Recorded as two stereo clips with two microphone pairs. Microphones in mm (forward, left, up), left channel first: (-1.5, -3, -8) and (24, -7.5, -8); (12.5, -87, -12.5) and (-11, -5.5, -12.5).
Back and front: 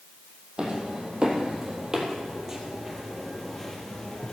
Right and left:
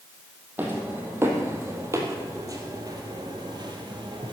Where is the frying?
I don't hear frying.